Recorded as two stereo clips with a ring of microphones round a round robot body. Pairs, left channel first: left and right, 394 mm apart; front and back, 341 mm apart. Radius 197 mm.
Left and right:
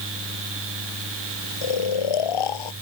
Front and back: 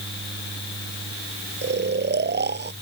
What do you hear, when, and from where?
1.6 s snoring: 120° left